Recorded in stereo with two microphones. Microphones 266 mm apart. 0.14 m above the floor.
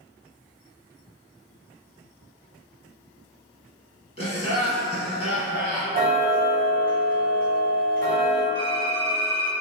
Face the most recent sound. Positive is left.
turn(degrees=-65)  # may be behind; listen again after turning